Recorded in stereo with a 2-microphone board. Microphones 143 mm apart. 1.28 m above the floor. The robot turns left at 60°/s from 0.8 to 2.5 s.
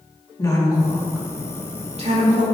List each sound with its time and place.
0.4 s a woman speaking: 25° left (ahead or behind), 2.5 m; by 2.4 s 75° right (ahead or behind), 2.5 m